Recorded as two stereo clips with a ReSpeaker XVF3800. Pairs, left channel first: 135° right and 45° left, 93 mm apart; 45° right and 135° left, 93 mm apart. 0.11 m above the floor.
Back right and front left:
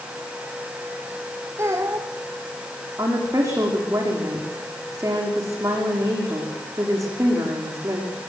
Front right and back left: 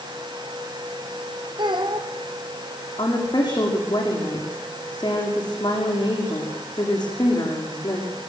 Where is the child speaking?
105° left, 3.5 m.